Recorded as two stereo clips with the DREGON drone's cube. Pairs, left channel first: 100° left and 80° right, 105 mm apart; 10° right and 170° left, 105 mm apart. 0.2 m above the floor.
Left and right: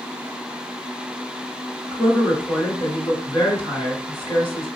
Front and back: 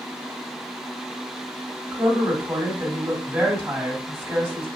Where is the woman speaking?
130° right, 1.9 m.